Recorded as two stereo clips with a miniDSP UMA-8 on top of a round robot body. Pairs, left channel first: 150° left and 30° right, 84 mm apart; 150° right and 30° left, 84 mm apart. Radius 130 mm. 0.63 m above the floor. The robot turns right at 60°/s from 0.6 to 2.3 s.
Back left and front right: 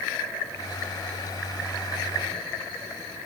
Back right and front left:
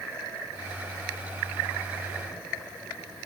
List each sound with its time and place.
Only background noise.